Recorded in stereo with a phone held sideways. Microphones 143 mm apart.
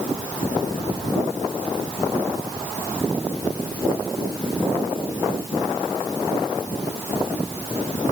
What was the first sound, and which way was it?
Only background noise.